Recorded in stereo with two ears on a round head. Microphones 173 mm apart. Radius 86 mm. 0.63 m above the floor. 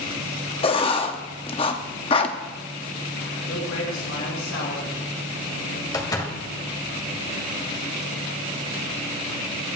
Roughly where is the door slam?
Centre.